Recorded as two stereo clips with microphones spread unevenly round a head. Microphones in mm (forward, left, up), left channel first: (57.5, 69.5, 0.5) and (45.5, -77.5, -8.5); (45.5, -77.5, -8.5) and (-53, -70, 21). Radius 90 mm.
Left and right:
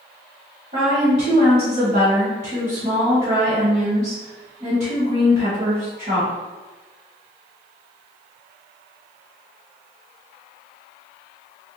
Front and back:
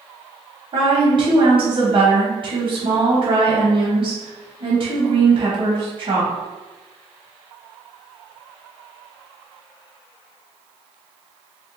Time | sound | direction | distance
0.7 | a woman speaking | 150° right | 0.9 m